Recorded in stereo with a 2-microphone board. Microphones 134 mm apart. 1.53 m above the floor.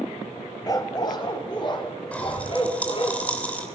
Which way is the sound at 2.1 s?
10° left (ahead or behind).